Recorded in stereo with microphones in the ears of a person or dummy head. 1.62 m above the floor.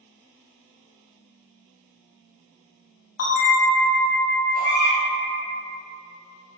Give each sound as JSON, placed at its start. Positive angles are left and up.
{"t": 3.2, "sound": "a bell", "side_deg": 55, "distance_m": 0.6}
{"t": 4.5, "sound": "a baby crying", "side_deg": 40, "distance_m": 0.7}